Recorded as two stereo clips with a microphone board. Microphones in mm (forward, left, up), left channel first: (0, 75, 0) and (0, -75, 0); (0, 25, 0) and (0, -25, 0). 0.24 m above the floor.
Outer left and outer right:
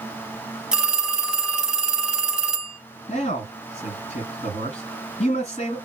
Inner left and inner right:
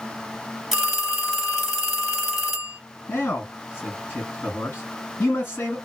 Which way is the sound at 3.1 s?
45° left (ahead or behind).